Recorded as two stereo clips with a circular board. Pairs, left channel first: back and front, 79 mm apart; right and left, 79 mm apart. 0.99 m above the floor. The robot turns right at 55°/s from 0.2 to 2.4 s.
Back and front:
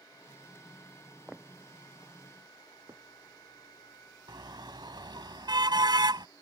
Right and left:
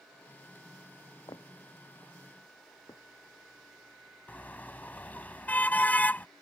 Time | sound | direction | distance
1.3 | footsteps | 80° right | ?
4.3 | a car horn | 20° right | ?